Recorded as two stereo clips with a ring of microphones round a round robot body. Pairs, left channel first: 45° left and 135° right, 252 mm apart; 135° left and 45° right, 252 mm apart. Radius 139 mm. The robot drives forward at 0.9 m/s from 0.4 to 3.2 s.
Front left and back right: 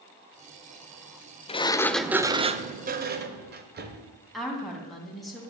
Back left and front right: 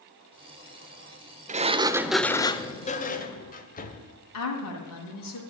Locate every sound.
1.5 s a sliding door: 5° right, 0.9 m; by 4.1 s 175° right, 1.3 m
4.3 s a woman speaking: 135° left, 3 m